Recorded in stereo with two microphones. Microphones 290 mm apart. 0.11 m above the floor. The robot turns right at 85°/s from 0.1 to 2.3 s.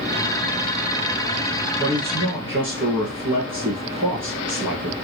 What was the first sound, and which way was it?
A man speaking, 155° right.